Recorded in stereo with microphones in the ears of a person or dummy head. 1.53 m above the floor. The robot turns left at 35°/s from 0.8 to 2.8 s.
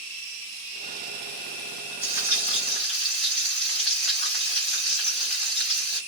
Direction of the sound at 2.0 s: 20° right (ahead or behind).